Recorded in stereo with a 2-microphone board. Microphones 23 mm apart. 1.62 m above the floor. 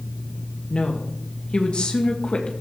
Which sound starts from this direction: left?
A woman speaking, at 0.7 s.